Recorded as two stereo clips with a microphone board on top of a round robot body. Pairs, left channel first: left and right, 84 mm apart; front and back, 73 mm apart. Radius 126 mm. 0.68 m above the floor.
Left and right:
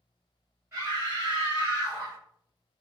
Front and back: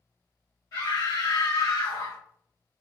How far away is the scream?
About 1.5 m.